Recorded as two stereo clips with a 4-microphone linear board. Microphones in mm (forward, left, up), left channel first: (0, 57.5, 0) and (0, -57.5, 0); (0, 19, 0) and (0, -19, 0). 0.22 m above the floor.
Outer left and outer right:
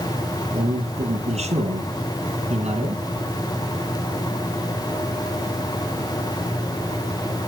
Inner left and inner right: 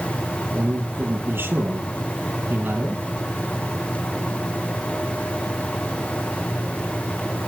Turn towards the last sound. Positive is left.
turn(degrees=-70)  # may be behind; listen again after turning